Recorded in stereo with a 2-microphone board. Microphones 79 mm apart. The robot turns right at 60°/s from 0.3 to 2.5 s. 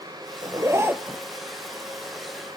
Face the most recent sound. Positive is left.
turn(degrees=65)